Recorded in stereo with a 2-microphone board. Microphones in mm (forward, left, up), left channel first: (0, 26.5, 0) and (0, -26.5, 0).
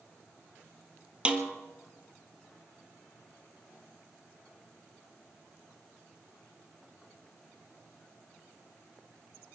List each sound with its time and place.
1.2 s a snare drum: 20° right (ahead or behind), 1.5 m